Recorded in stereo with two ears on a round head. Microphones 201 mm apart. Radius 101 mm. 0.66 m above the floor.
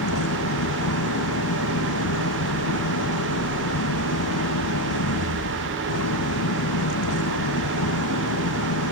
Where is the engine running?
75° left (ahead or behind).